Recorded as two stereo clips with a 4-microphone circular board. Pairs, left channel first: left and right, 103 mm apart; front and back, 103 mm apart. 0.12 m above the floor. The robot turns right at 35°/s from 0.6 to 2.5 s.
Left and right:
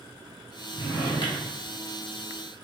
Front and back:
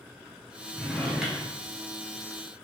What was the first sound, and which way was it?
A drawer, 80° left.